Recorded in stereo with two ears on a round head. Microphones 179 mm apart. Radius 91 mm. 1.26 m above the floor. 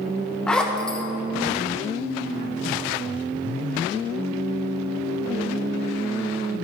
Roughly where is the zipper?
Centre.